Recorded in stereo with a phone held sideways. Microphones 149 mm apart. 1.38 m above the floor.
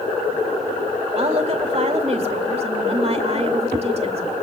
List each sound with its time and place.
1.1 s a woman speaking: 45° right (ahead or behind), 2 m